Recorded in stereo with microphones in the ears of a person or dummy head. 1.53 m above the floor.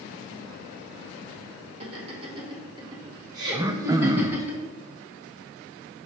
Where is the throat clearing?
20° right (ahead or behind), 0.5 m.